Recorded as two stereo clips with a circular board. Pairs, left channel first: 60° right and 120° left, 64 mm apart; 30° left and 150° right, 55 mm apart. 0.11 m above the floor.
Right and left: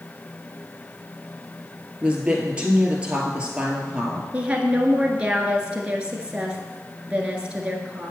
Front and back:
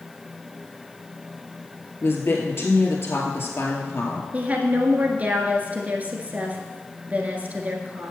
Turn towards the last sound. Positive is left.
turn(degrees=180)